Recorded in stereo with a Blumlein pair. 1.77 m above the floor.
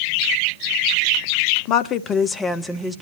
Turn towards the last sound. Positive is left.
turn(degrees=-10)